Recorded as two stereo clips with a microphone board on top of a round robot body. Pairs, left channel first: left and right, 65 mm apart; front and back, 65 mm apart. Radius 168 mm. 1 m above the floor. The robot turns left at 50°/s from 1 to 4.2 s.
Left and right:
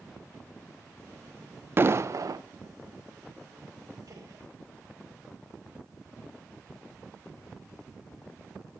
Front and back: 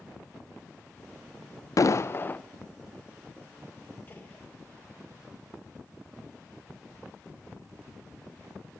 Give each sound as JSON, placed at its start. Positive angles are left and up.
{"t": 1.8, "sound": "an explosion", "azimuth_deg": -35, "distance_m": 0.6}
{"t": 4.1, "sound": "a gunshot", "azimuth_deg": -55, "distance_m": 2.5}